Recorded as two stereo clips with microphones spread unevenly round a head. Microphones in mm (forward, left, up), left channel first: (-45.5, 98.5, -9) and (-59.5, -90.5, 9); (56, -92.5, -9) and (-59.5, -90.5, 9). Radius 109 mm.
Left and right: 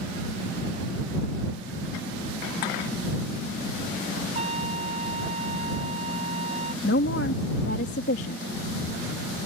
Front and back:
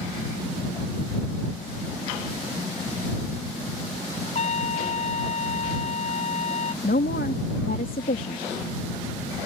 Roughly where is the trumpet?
Ahead right.